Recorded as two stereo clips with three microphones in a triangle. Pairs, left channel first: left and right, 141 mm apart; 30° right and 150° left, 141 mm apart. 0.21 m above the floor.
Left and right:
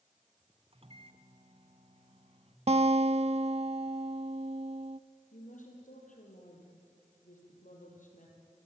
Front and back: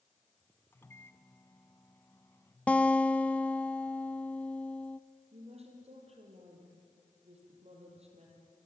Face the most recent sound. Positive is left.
turn(degrees=110)